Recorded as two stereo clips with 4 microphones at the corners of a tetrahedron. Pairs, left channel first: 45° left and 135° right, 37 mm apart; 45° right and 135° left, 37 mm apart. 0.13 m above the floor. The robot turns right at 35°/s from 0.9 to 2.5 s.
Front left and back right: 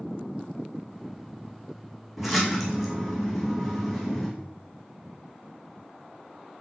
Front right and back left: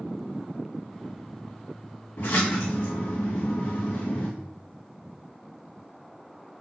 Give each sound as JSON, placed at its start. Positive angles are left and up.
{"t": 2.2, "sound": "a splash", "azimuth_deg": -55, "distance_m": 2.0}